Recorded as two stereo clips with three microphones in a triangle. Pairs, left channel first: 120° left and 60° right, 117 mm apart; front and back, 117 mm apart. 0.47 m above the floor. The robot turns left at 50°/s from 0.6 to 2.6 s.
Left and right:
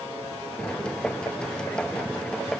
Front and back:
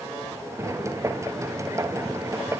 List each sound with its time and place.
Only background noise.